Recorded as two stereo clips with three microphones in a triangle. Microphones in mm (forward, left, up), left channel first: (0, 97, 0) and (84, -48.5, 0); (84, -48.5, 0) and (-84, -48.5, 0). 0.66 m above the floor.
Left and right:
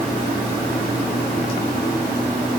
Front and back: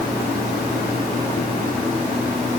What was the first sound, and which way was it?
Only background noise.